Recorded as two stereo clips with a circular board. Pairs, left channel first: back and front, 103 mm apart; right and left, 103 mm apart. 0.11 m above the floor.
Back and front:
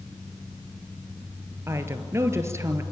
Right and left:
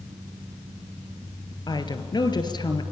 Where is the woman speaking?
60° right, 2 m.